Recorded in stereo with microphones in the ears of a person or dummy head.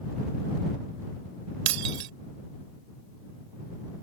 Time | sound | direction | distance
1.7 | breaking glass | 75° right (ahead or behind) | ?